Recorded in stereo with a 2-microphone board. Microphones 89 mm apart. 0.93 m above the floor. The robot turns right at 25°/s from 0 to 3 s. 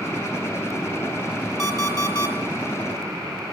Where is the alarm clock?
30° left (ahead or behind), 1.8 m; by 2.4 s 50° left (ahead or behind), 1.8 m.